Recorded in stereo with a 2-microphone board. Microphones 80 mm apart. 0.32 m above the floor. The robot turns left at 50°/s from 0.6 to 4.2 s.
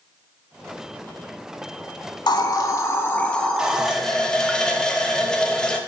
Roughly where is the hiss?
Left.